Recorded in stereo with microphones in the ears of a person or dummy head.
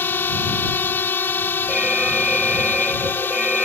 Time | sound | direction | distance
0.0 | a drone | 10° left (ahead or behind) | ?
1.7 | an alarm | 5° right (ahead or behind) | ?